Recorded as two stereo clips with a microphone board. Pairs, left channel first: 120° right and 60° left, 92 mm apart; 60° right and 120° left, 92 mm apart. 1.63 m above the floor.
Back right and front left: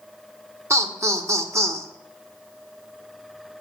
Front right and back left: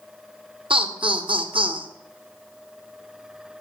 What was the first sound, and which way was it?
Laughter, 115° left.